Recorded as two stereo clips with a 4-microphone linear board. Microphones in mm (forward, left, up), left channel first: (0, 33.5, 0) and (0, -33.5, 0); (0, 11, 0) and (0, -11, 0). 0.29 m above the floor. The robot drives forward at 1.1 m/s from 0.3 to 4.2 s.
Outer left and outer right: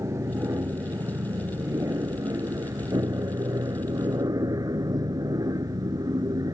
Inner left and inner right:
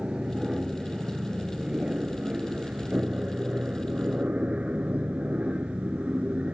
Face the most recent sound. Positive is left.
turn(degrees=-70)  # may be behind; listen again after turning